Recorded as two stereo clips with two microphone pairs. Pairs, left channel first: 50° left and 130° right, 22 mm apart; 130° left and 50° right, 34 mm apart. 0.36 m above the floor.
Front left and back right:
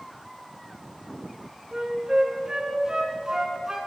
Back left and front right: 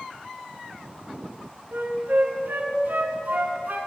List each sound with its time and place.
1.7 s a flute: 70° right, 1.7 m